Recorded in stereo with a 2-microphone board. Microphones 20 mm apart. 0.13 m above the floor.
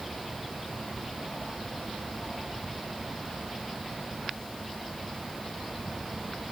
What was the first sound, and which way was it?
Only background noise.